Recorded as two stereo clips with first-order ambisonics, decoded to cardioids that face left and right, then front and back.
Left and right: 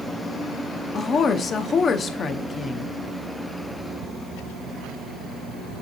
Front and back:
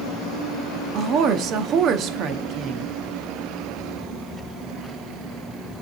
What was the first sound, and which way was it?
A woman speaking, 145° left.